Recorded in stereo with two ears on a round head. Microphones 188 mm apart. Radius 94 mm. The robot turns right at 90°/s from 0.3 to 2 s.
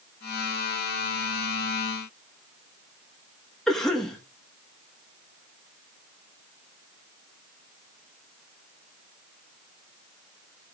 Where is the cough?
Centre (ahead or behind), 1.4 m.